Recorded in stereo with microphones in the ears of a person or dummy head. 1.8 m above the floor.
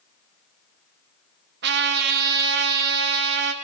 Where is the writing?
I don't hear writing.